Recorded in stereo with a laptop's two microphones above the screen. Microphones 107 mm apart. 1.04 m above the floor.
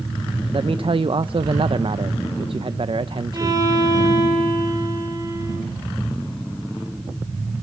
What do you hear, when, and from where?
0.5 s a man speaking: 55° right (ahead or behind), 0.6 m
3.3 s a violin: 35° right (ahead or behind), 6 m